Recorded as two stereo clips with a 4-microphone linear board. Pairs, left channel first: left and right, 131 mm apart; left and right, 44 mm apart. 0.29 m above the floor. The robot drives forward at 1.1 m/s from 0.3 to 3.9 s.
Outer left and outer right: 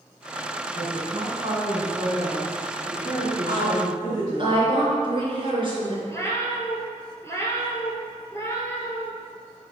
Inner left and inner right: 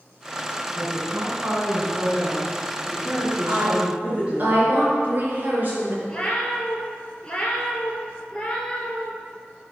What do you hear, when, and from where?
0.7 s a woman speaking: 45° right (ahead or behind), 2.5 m; by 4.5 s 20° right (ahead or behind), 4.5 m
3.5 s a woman speaking: 45° right (ahead or behind), 3 m; by 6.0 s 40° right (ahead or behind), 3.5 m
6.1 s a cat meowing: 20° left (ahead or behind), 1.5 m